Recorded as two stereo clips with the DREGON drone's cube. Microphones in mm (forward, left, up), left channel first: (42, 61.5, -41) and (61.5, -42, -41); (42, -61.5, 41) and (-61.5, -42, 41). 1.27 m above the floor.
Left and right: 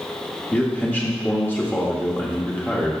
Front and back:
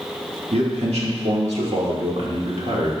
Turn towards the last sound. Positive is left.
turn(degrees=175)